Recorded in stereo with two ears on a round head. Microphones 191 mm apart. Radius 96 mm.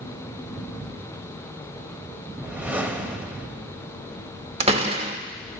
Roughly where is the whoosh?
Centre.